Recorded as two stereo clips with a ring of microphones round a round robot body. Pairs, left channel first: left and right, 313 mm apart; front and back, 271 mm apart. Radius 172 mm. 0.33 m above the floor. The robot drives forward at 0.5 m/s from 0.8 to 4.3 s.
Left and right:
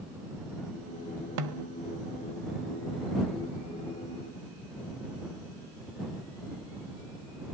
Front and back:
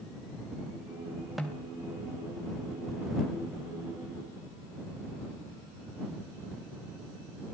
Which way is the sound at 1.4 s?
90° right.